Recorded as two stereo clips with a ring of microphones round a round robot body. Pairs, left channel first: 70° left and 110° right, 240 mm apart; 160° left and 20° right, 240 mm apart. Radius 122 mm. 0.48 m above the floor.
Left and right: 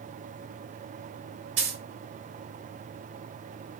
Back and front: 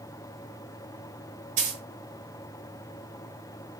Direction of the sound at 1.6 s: 80° right.